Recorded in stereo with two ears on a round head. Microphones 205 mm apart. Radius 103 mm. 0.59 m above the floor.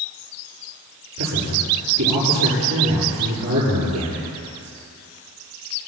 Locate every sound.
1.2 s a man speaking: 85° right, 9.5 m